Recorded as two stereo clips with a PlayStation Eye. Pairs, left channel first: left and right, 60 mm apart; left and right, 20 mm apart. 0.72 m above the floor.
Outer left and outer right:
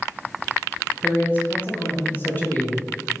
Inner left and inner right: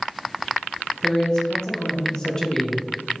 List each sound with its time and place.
1.0 s a man speaking: 35° left (ahead or behind), 0.6 m